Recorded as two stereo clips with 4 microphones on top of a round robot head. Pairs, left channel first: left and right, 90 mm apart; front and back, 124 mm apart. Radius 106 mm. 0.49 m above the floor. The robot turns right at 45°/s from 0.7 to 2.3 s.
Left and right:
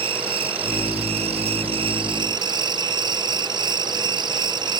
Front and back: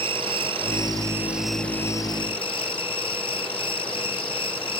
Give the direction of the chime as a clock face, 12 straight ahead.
No chime in this recording.